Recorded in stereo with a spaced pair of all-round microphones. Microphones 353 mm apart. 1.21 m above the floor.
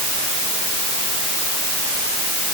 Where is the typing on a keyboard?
No typing on a keyboard in this recording.